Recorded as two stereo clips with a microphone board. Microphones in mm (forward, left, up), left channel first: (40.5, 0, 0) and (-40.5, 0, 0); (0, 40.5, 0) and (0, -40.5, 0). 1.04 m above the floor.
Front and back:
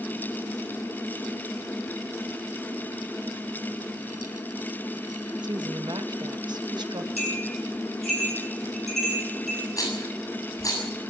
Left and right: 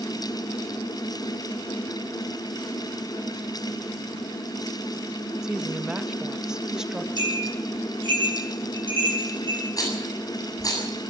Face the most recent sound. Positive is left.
turn(degrees=45)